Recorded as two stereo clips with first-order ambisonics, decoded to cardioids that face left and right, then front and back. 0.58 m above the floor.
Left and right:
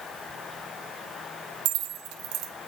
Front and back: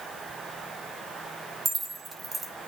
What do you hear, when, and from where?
1.6 s keys jangling: 105° right, 1.4 m